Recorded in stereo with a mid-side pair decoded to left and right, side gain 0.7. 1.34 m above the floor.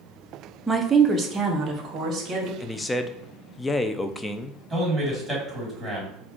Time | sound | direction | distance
0.7 | a woman speaking | straight ahead | 0.7 m
2.6 | a man speaking | 15° left | 0.5 m
4.7 | a man speaking | 5° right | 2.5 m